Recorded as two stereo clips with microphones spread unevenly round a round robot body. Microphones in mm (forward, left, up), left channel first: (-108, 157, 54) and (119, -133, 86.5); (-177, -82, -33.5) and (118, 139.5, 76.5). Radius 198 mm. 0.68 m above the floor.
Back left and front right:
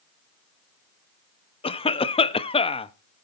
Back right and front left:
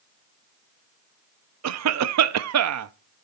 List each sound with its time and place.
1.6 s a cough: 75° left, 0.7 m